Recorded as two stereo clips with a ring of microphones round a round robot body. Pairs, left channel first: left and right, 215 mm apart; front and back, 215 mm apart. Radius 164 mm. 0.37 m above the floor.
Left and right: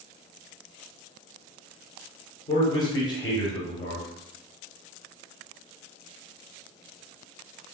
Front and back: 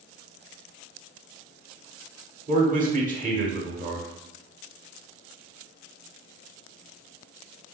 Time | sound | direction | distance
2.5 | a man speaking | 150° left | 1.2 m